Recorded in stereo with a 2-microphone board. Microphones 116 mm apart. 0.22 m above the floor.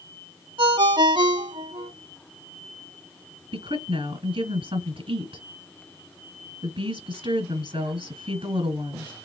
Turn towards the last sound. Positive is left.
turn(degrees=-50)  # may be behind; listen again after turning